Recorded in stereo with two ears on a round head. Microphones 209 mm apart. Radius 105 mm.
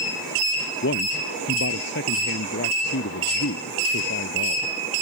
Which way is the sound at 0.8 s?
50° left (ahead or behind).